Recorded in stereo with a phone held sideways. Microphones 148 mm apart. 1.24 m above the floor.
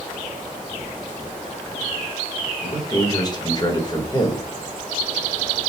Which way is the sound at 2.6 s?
30° left (ahead or behind).